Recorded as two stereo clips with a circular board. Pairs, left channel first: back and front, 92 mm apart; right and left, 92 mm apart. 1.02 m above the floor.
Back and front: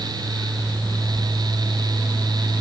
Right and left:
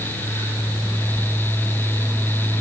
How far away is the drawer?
No drawer in this recording.